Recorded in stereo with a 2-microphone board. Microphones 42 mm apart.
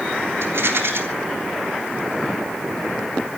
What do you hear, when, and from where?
0.4 s a rattle: 70° right (ahead or behind), 3.5 m